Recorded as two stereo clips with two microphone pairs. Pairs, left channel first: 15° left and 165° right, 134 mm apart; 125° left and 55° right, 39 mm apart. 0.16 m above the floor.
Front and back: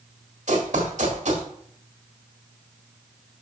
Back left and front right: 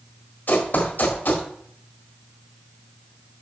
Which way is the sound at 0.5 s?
170° left.